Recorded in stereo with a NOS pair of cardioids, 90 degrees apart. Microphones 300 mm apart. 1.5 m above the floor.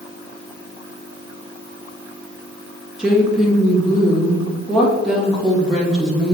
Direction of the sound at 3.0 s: Straight ahead.